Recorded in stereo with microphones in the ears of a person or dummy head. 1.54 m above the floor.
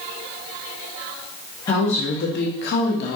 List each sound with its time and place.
1.7 s a woman speaking: 20° left (ahead or behind), 0.5 m; by 3.2 s 60° left (ahead or behind), 0.8 m